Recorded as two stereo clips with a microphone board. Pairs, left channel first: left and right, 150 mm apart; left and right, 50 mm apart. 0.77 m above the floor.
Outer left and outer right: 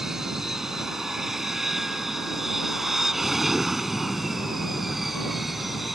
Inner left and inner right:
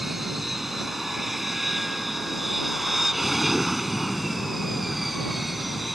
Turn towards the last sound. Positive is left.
turn(degrees=0)  # may be behind; listen again after turning